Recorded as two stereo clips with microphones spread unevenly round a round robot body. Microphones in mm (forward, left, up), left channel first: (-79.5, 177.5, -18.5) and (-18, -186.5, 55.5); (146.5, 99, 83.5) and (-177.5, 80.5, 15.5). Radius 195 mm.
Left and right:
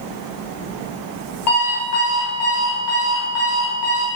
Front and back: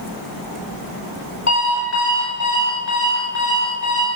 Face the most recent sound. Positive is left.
turn(degrees=50)